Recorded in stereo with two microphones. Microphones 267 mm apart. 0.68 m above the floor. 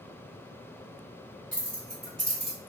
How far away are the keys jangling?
About 1.5 m.